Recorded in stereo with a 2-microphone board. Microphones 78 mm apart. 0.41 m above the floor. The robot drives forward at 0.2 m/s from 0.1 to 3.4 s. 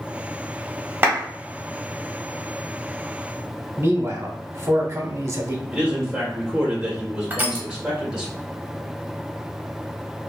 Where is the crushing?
25° right (ahead or behind), 0.8 m.